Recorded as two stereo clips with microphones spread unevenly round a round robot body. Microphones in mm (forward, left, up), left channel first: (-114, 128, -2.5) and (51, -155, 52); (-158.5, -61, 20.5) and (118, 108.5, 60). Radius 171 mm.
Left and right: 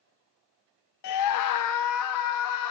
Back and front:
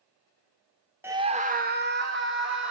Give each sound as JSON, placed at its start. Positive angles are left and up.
{"t": 1.0, "sound": "a scream", "azimuth_deg": 120, "distance_m": 0.6}